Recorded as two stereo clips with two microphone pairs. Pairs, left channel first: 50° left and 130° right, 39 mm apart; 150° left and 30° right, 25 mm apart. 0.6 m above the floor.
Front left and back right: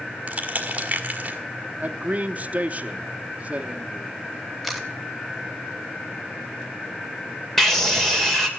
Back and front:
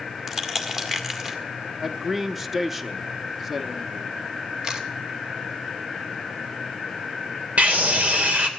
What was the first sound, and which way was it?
Crushing, 95° right.